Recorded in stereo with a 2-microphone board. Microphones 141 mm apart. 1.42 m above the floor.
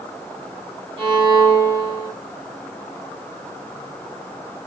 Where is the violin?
35° right (ahead or behind), 1.4 m.